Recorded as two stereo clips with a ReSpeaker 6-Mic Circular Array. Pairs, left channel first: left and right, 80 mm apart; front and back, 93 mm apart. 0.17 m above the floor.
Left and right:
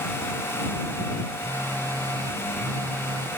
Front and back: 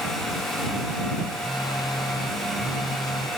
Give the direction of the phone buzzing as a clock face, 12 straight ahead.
1 o'clock.